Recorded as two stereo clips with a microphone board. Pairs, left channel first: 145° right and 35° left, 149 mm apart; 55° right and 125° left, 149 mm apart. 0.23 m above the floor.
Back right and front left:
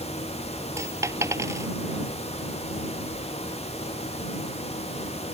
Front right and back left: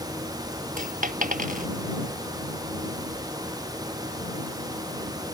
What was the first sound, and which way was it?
A dropped coin, 105° left.